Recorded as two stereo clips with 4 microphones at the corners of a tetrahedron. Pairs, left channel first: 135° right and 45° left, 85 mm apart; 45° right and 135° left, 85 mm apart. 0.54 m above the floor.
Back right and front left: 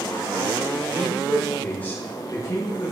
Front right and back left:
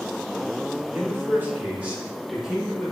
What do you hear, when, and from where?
0.9 s a man speaking: 115° left, 0.9 m; by 2.9 s 140° right, 1.2 m